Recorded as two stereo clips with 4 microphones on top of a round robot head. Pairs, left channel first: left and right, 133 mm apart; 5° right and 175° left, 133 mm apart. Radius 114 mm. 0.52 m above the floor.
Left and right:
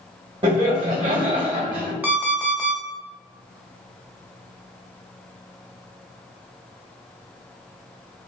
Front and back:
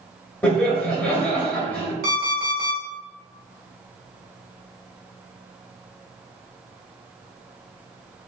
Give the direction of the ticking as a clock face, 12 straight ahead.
I don't hear ticking.